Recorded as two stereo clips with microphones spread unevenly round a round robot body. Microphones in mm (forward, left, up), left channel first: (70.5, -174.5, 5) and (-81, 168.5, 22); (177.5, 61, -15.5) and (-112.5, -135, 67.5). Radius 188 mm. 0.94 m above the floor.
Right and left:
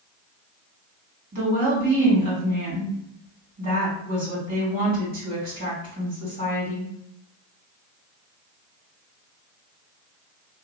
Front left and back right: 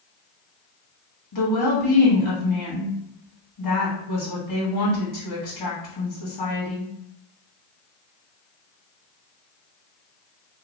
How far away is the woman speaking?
About 1.9 m.